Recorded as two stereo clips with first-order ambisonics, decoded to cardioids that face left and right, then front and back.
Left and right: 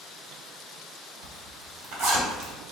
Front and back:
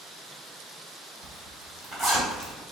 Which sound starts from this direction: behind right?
A zipper, at 1.2 s.